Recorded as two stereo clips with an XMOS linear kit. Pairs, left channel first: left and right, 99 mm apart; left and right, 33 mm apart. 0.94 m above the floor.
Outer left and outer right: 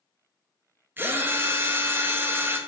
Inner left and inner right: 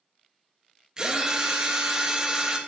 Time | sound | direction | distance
1.0 | a drill | 20° right (ahead or behind) | 0.5 m